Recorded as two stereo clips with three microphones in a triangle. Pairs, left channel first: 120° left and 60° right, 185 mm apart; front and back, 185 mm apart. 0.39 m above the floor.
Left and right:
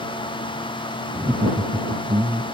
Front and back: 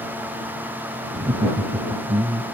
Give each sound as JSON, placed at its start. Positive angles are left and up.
{"t": 1.1, "sound": "laughter", "azimuth_deg": -135}